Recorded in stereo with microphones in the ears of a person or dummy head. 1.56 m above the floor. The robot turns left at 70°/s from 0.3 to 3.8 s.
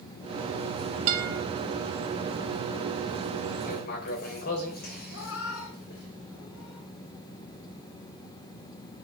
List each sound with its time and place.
1.1 s a guitar: 40° right (ahead or behind), 1.6 m; by 1.4 s 60° right (ahead or behind), 1.6 m
3.6 s writing: 40° left (ahead or behind), 3.5 m; by 6.1 s 50° left (ahead or behind), 3.5 m
5.1 s a cat meowing: 70° left (ahead or behind), 4 m